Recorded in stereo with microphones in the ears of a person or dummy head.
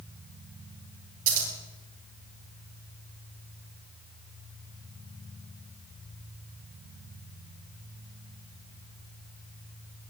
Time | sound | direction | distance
1.3 | scissors | 45° right (ahead or behind) | 4.5 m